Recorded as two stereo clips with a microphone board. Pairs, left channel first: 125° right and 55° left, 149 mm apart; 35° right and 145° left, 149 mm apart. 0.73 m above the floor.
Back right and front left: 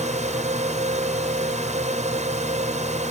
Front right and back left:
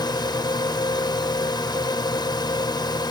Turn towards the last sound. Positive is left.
turn(degrees=25)